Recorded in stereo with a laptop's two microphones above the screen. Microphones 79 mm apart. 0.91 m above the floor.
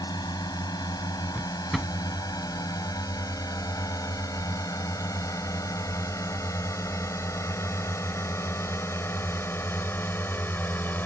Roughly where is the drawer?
Centre.